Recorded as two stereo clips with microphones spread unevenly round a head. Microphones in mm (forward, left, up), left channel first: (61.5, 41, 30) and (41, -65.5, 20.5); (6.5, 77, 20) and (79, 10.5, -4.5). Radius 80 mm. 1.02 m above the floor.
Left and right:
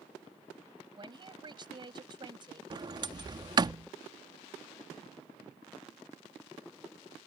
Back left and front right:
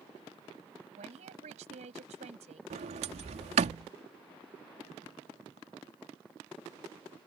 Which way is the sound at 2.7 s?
50° right.